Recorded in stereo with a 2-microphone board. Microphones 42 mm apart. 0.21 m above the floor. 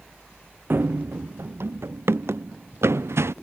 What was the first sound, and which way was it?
Running footsteps, 55° right (ahead or behind).